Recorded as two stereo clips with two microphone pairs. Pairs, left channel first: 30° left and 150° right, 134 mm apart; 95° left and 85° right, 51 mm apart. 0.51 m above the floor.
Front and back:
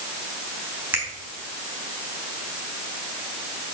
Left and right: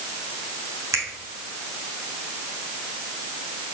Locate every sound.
0.9 s a finger snap: 75° right, 3 m